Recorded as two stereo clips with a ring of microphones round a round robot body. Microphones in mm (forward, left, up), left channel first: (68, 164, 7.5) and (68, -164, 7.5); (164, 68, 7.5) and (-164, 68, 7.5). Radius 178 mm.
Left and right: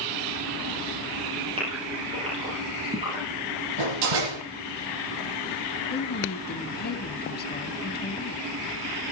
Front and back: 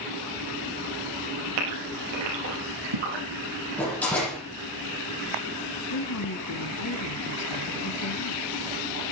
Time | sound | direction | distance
1.6 | a gasp | 165° right | 9.5 m
3.8 | a door slam | 85° right | 9.5 m
5.9 | a woman speaking | 30° left | 3 m